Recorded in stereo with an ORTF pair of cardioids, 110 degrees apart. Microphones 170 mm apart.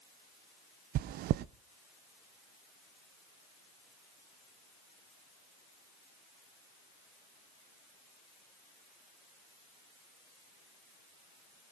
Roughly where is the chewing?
Right.